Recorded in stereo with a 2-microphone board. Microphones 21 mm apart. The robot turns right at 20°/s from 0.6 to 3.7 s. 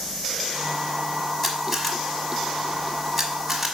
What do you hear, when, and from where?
1.4 s a camera shutter: 5° left (ahead or behind), 1.3 m; by 3.8 s 10° right (ahead or behind), 1.3 m